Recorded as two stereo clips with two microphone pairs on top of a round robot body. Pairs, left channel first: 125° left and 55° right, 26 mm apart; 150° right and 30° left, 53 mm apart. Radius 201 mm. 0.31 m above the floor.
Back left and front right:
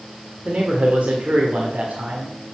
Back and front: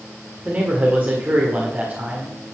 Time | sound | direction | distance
0.5 | a man speaking | 25° right | 1.9 m